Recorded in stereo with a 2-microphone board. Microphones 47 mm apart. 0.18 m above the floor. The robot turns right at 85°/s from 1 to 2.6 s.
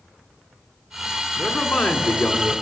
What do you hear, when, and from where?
1.4 s a man speaking: 25° left, 1.9 m; by 2.5 s 125° left, 1.9 m